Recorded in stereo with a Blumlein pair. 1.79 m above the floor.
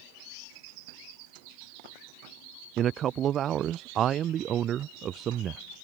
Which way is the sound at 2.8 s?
30° right.